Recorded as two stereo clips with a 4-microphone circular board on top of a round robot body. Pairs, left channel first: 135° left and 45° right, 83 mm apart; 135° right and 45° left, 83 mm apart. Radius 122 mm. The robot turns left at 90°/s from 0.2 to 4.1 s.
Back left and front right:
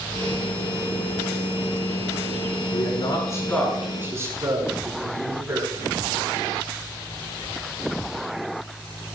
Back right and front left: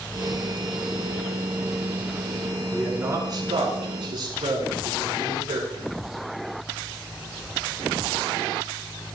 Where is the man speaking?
140° left, 7.5 m; by 5.9 s 15° left, 7.5 m.